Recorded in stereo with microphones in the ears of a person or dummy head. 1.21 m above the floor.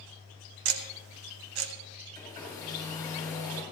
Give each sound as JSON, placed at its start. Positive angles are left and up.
{"t": 0.7, "sound": "ticking", "side_deg": -70, "distance_m": 1.3}
{"t": 2.1, "sound": "a hair dryer", "side_deg": 20, "distance_m": 6.5}